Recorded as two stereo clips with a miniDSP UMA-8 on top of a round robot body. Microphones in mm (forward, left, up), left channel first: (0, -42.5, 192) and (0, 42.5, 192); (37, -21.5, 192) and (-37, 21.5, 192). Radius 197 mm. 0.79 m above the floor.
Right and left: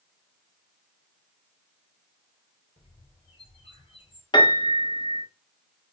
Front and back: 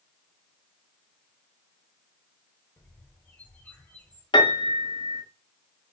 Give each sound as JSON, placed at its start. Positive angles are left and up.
{"t": 2.8, "sound": "a bird", "azimuth_deg": -100, "distance_m": 3.0}
{"t": 4.3, "sound": "a piano", "azimuth_deg": -55, "distance_m": 2.0}